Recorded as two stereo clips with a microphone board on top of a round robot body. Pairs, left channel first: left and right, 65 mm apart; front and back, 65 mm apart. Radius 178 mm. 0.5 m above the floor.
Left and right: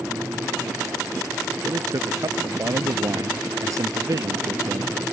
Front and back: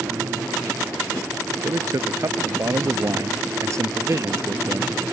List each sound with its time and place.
1.6 s a man speaking: 135° right; by 4.9 s 130° right